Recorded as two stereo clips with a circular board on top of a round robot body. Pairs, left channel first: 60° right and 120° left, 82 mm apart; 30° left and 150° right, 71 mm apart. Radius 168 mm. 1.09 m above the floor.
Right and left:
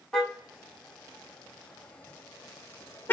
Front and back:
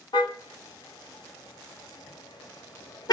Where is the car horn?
25° left, 4.5 m; by 3.1 s 5° left, 2.5 m.